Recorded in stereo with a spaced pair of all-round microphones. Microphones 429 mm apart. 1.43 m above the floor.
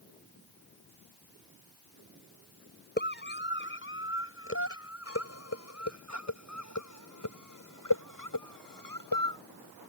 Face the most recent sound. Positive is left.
turn(degrees=55)  # may be behind; listen again after turning